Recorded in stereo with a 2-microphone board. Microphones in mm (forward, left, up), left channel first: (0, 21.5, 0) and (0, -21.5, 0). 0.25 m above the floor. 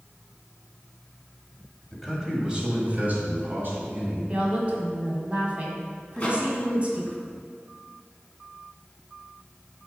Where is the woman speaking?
30° right (ahead or behind), 1.6 m.